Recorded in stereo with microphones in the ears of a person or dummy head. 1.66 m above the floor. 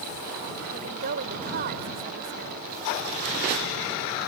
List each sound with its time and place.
0.7 s a woman speaking: 60° right (ahead or behind)